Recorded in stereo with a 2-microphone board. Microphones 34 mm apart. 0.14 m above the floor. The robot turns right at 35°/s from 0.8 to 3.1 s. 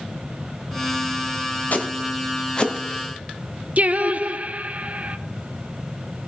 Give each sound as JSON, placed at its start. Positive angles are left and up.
{"t": 1.7, "sound": "footsteps", "side_deg": 55, "distance_m": 2.0}
{"t": 3.8, "sound": "singing", "side_deg": -45, "distance_m": 0.6}